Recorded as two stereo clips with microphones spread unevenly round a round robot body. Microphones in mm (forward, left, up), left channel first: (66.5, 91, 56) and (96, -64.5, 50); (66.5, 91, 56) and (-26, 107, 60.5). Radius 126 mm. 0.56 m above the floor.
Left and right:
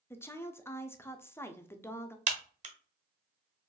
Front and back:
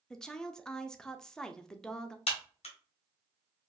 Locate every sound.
0.1 s a woman speaking: 50° left, 0.6 m
2.3 s a crack: 35° right, 1.2 m